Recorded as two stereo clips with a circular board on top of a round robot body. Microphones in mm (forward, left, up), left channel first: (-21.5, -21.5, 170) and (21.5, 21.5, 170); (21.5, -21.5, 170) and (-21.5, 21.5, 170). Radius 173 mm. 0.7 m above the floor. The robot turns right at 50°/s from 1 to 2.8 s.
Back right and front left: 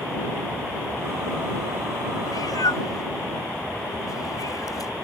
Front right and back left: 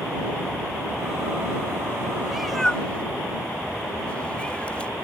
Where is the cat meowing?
145° right; by 4.9 s 115° right.